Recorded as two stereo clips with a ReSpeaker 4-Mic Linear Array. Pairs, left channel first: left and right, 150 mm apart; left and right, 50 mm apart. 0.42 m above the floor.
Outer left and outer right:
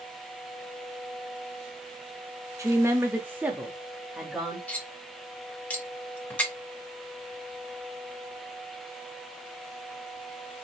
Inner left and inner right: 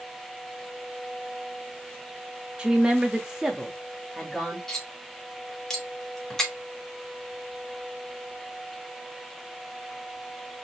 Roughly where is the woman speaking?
Centre.